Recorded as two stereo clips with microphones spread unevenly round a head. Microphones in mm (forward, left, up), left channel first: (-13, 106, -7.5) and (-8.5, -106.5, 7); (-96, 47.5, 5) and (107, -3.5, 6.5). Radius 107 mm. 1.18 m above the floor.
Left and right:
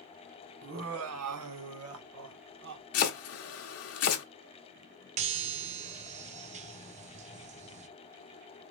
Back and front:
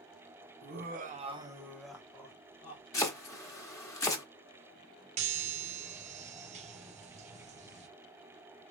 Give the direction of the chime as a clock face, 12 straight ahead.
2 o'clock.